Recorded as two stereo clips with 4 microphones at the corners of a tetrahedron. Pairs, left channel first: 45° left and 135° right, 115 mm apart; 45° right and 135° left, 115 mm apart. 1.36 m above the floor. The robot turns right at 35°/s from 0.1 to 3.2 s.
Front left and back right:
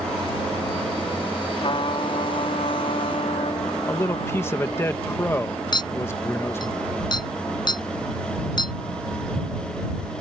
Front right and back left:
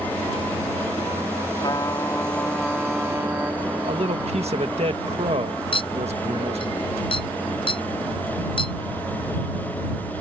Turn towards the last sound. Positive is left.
turn(degrees=-5)